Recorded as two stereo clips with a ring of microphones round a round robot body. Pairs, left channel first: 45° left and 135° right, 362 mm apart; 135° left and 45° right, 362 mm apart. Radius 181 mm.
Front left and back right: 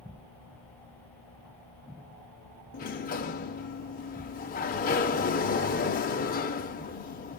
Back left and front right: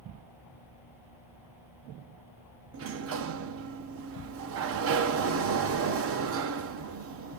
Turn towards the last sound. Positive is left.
turn(degrees=-10)